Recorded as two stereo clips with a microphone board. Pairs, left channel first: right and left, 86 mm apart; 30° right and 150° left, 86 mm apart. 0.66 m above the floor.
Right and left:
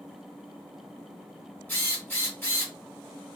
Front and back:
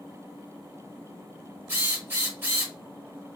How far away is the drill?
About 1.3 m.